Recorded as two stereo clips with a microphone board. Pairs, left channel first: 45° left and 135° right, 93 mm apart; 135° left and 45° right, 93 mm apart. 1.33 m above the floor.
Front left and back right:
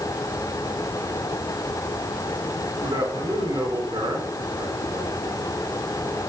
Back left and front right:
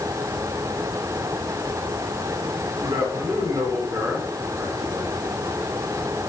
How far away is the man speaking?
About 5.5 m.